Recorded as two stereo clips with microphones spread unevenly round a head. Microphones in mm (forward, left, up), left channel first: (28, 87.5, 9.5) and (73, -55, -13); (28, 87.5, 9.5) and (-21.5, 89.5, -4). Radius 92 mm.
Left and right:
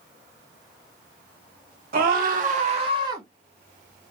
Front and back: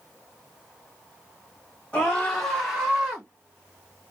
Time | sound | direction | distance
1.9 | a scream | 85° right | 1.0 m